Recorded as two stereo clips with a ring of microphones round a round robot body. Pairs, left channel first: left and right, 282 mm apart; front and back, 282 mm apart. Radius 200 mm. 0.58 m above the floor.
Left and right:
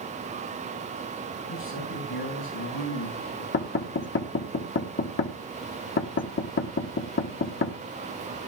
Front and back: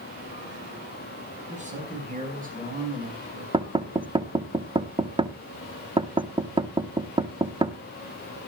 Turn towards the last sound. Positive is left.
turn(degrees=115)